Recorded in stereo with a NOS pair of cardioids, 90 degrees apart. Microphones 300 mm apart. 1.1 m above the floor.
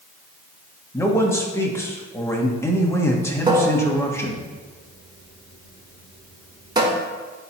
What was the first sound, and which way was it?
A man speaking, 10° left.